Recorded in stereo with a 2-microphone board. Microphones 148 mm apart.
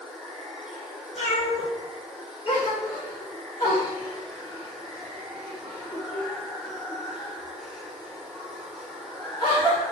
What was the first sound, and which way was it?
Running water, 5° right (ahead or behind).